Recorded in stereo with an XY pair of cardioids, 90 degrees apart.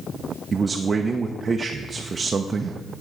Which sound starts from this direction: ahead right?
A man speaking, at 0.5 s.